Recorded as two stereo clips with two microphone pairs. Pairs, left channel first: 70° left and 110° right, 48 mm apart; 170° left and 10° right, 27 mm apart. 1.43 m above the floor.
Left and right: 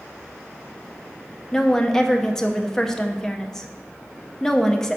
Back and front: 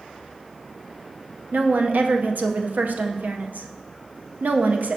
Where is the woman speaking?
10° right, 0.7 m.